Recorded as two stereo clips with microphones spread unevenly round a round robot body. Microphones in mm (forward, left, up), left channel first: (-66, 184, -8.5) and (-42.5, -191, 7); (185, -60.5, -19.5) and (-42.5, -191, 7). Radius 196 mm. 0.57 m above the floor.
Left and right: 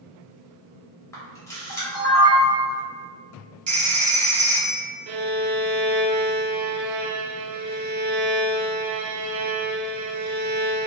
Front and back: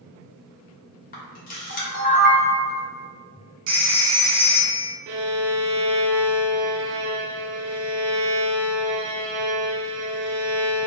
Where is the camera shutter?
20° left, 0.9 m.